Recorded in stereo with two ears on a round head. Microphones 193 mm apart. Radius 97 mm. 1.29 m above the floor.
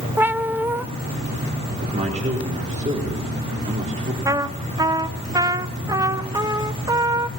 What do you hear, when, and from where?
0.2 s a cat meowing: 10° right (ahead or behind), 0.6 m
1.8 s a man speaking: 35° right (ahead or behind), 4 m
4.2 s a trumpet: 15° right (ahead or behind), 0.7 m